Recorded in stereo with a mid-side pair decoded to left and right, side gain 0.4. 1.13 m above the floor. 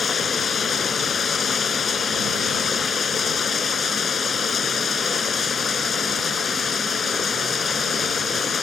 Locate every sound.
0.0 s running water: 45° left